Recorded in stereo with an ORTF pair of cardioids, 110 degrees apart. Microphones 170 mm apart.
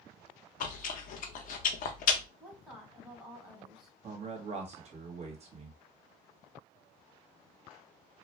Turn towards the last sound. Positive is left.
turn(degrees=-40)